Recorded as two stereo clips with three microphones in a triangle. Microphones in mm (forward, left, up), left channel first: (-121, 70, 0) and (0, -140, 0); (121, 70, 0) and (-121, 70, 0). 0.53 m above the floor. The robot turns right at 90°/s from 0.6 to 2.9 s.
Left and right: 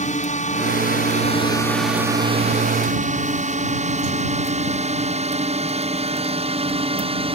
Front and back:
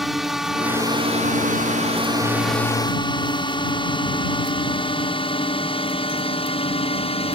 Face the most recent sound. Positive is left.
turn(degrees=-30)